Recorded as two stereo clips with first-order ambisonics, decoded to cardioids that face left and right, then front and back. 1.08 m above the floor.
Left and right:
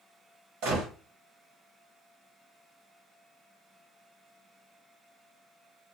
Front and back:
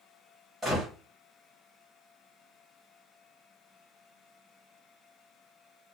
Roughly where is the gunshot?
Right.